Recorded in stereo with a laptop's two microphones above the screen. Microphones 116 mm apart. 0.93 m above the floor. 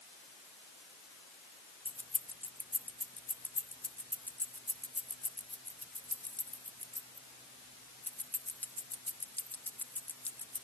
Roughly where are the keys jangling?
Centre.